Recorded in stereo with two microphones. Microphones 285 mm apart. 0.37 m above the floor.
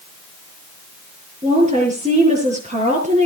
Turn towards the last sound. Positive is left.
turn(degrees=-25)  # may be behind; listen again after turning